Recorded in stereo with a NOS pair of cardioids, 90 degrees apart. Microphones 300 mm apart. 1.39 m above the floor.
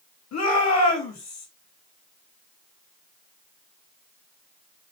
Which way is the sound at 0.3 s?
60° left.